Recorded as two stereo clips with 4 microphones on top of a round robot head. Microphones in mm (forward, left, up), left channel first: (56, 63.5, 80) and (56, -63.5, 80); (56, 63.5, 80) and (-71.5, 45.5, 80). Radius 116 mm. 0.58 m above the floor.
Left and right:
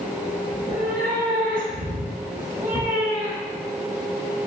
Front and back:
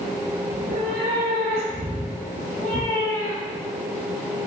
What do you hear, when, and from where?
0.5 s a cat meowing: 150° right, 1.8 m; by 3.7 s straight ahead, 2 m